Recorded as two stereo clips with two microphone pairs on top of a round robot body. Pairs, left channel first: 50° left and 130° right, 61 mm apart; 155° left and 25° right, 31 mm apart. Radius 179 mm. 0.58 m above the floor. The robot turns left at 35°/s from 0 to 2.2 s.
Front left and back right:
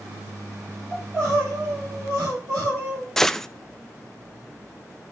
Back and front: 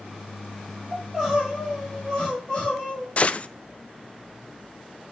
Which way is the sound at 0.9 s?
85° right.